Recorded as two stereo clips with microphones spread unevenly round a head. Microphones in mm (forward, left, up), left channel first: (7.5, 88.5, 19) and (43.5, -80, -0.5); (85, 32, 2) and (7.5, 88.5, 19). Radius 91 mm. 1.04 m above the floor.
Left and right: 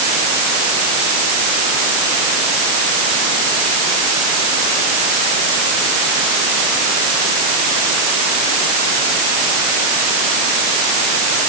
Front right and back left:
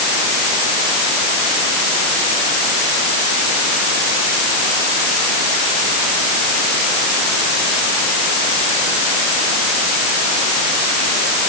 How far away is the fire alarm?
No fire alarm in this recording.